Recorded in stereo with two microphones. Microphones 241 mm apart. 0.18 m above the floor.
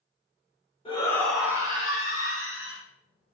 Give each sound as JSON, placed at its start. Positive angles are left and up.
{"t": 0.8, "sound": "a shout", "side_deg": 25, "distance_m": 1.1}